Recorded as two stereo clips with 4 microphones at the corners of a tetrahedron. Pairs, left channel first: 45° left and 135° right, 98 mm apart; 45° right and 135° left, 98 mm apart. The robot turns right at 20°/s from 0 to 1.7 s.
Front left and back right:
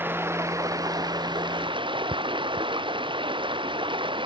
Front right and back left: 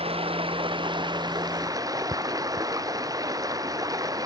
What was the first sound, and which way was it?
Running water, 155° left.